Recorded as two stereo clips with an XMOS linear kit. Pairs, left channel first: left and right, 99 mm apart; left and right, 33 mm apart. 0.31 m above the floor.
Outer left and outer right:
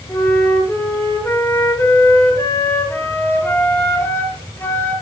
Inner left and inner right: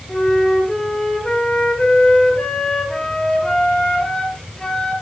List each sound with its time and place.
0.1 s a flute: 25° left (ahead or behind), 3.5 m